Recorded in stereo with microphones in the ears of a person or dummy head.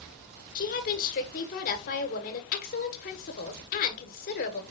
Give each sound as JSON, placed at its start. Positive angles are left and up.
{"t": 0.6, "sound": "a woman speaking", "side_deg": 45, "distance_m": 1.5}